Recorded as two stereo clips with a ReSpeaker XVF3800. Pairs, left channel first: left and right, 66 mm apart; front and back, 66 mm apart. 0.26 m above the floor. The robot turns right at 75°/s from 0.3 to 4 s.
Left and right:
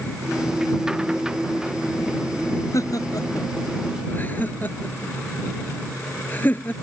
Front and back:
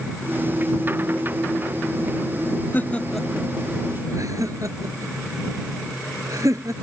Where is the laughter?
55° left; by 6.7 s 150° left.